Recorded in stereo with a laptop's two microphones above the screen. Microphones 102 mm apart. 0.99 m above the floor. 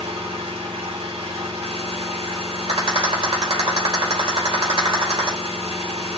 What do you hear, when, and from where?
0.0 s an engine running: 70° right (ahead or behind), 2 m
2.7 s a rattle: 55° right (ahead or behind), 3 m